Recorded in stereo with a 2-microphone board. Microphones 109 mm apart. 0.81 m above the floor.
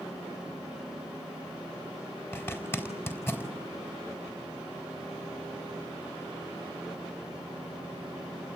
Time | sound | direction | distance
2.3 | a zipper | 20° left (ahead or behind) | 4.5 m